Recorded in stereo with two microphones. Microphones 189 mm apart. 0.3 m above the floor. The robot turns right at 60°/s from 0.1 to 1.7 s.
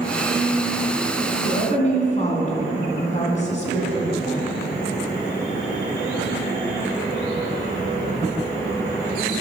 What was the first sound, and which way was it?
A woman speaking, 50° left (ahead or behind).